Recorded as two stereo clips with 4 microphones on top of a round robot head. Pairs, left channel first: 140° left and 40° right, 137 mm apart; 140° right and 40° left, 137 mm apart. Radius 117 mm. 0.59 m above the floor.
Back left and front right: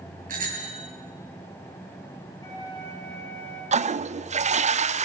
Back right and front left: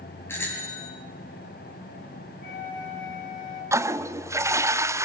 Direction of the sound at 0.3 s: 65° right.